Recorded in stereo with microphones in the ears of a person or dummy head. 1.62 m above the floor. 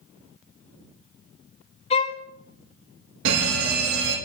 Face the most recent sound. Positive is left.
turn(degrees=-70)  # may be behind; listen again after turning